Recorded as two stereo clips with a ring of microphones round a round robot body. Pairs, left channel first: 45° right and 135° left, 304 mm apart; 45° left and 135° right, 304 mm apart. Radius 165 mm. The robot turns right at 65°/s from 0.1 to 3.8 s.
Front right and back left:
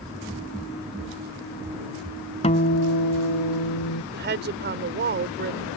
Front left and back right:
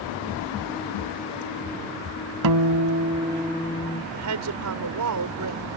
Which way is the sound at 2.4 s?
115° right.